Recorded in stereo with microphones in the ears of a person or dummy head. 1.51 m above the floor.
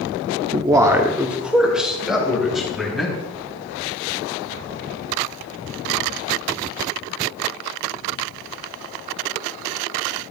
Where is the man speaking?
30° right (ahead or behind), 0.5 m; by 3.1 s 5° right (ahead or behind), 3 m.